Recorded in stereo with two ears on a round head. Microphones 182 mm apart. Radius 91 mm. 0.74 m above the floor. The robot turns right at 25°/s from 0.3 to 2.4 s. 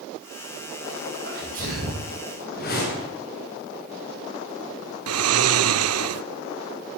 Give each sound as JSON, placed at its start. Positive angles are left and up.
{"t": 1.2, "sound": "a sneeze", "side_deg": -55, "distance_m": 3.5}
{"t": 2.5, "sound": "a whoosh", "side_deg": 50, "distance_m": 4.5}
{"t": 5.1, "sound": "snoring", "side_deg": -80, "distance_m": 0.7}